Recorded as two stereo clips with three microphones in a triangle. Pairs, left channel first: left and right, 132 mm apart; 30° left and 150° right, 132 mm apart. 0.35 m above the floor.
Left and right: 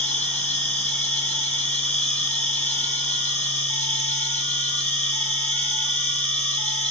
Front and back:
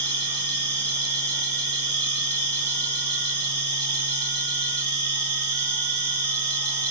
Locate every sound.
0.0 s an insect: 160° left, 3 m